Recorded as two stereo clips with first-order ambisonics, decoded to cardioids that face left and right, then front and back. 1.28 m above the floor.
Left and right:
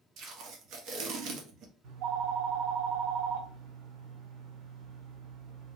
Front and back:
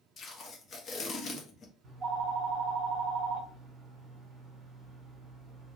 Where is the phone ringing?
110° right, 1.9 m.